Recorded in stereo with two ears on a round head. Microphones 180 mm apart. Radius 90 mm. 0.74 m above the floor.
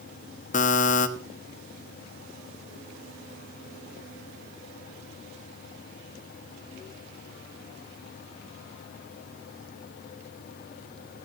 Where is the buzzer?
40° left (ahead or behind), 1.3 m.